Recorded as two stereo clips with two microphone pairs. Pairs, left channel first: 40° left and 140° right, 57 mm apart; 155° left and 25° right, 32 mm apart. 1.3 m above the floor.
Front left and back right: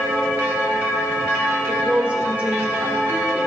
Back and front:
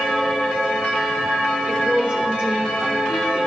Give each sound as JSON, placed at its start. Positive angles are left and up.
{"t": 1.7, "sound": "a woman speaking", "azimuth_deg": -75, "distance_m": 2.0}